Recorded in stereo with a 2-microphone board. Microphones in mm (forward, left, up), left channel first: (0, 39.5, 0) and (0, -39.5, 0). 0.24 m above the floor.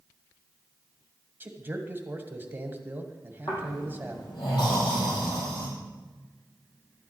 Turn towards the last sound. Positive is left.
turn(degrees=75)  # may be behind; listen again after turning